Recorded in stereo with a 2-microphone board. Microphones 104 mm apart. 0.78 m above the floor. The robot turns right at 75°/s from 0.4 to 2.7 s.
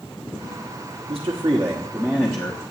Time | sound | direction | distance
1.1 | a man speaking | 65° right | 1.0 m